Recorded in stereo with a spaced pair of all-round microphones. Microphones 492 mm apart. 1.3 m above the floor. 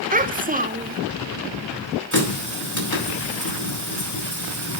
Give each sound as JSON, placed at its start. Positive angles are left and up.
{"t": 0.1, "sound": "a child speaking", "side_deg": -15, "distance_m": 0.6}
{"t": 2.1, "sound": "a running tap", "side_deg": 35, "distance_m": 4.5}